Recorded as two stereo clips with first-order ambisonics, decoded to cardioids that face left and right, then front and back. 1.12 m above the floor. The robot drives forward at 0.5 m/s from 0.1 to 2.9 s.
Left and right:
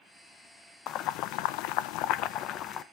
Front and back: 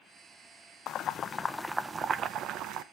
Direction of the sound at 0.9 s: 45° left.